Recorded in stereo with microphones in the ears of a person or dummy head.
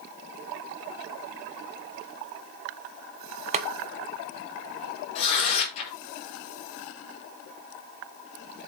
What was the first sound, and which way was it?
Boiling, 35° right (ahead or behind).